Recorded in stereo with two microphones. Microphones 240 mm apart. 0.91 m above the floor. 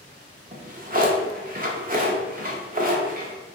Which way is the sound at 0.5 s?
40° right (ahead or behind).